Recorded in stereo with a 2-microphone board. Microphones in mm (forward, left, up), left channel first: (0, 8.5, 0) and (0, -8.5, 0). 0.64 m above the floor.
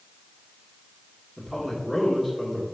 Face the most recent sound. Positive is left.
turn(degrees=5)  # may be behind; listen again after turning